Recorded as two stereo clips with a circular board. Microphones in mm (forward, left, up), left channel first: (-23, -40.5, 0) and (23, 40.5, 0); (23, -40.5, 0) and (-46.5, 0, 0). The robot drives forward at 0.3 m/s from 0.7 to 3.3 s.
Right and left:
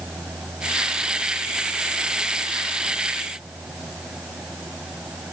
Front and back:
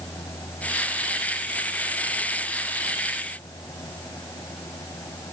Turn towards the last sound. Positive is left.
No sound to turn to.